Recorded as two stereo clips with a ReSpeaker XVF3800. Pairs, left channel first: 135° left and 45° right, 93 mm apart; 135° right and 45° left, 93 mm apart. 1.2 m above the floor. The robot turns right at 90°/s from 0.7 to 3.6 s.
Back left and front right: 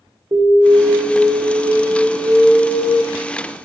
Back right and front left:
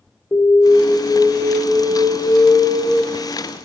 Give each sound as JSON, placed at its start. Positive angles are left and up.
{"t": 0.3, "sound": "an alarm", "azimuth_deg": -85, "distance_m": 2.0}